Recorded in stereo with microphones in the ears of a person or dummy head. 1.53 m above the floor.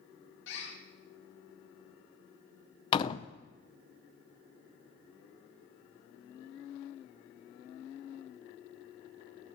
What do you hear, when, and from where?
0.5 s a bird: 70° left (ahead or behind), 3 m
2.9 s a door slam: 30° left (ahead or behind), 0.6 m